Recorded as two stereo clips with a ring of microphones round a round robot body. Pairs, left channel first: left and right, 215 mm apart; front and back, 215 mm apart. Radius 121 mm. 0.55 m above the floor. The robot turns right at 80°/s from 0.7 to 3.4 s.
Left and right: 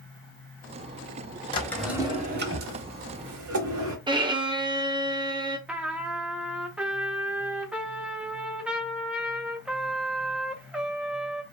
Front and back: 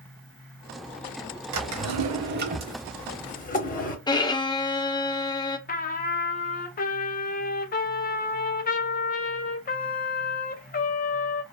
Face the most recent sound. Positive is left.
turn(degrees=-5)